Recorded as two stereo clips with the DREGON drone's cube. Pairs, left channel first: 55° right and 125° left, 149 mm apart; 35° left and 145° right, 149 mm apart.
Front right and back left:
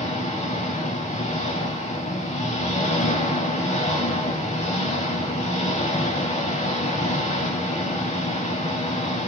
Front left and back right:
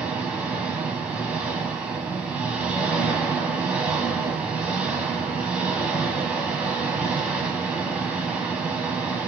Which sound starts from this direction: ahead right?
An engine running, at 0.0 s.